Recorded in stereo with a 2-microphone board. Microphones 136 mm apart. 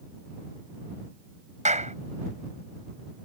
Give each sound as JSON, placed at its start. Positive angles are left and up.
{"t": 1.6, "sound": "a clap", "side_deg": -65}